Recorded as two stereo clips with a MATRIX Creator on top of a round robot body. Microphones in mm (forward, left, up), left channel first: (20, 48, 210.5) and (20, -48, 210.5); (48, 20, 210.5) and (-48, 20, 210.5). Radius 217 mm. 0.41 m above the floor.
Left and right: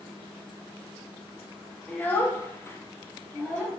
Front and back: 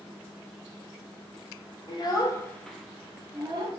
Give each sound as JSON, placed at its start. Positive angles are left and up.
{"t": 1.9, "sound": "a child speaking", "azimuth_deg": 20, "distance_m": 0.8}